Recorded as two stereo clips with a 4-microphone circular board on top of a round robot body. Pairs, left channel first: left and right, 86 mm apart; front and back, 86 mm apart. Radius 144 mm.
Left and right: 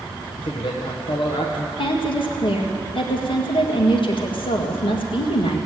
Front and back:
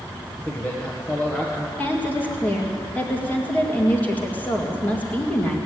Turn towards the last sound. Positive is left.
turn(degrees=70)